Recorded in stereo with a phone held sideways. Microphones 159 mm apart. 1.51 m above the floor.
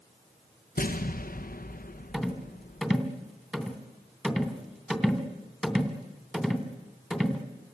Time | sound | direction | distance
0.8 | an explosion | 55° left (ahead or behind) | 0.9 m
2.1 | a rattle | 5° right (ahead or behind) | 2.5 m